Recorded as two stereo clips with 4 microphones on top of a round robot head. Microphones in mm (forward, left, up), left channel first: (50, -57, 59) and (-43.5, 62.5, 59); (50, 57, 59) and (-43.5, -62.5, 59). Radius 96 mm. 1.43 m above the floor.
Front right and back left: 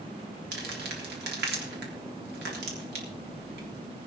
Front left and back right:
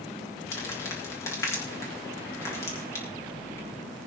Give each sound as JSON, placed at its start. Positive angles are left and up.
{"t": 0.5, "sound": "crumpling", "azimuth_deg": 125, "distance_m": 3.5}